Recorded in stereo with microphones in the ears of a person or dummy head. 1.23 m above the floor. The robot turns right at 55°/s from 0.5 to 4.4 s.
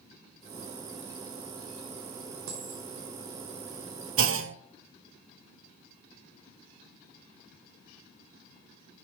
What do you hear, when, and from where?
2.5 s a dropped coin: 70° right (ahead or behind), 1.8 m; by 2.9 s 60° right (ahead or behind), 1.8 m
4.2 s a clunk: 55° right (ahead or behind), 0.5 m